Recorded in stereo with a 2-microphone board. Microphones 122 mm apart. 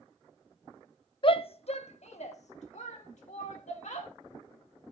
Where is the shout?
45° left (ahead or behind), 0.7 m; by 4.1 s 75° left (ahead or behind), 2.5 m.